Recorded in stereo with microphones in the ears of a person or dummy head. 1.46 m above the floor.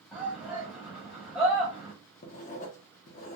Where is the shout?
5° right (ahead or behind), 1.2 m.